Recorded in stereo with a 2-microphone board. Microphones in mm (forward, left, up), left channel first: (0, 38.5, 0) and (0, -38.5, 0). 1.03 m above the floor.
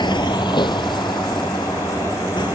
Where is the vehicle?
85° left; by 2.6 s 75° left (ahead or behind).